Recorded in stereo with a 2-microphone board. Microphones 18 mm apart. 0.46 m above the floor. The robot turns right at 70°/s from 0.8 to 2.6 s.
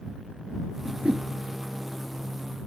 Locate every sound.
0.8 s a whoosh: 85° right; by 1.3 s 65° right (ahead or behind)